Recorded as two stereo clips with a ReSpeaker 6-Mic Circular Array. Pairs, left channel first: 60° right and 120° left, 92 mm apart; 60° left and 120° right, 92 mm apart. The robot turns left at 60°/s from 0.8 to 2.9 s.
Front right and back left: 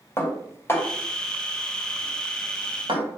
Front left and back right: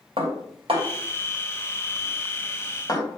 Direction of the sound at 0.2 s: 125° right.